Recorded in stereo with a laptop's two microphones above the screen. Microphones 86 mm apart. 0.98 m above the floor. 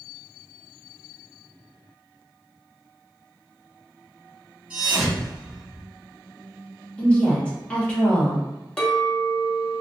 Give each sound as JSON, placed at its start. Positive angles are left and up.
{"t": 4.7, "sound": "a thud", "side_deg": -15, "distance_m": 1.5}
{"t": 7.0, "sound": "a woman speaking", "side_deg": 15, "distance_m": 1.4}
{"t": 8.8, "sound": "a clink", "side_deg": 10, "distance_m": 0.5}